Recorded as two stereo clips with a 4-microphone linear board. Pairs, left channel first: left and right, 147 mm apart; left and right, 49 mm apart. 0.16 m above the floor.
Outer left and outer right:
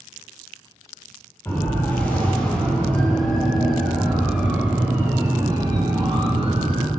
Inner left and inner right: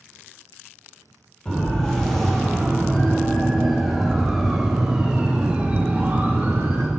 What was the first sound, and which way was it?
A siren, 15° left (ahead or behind).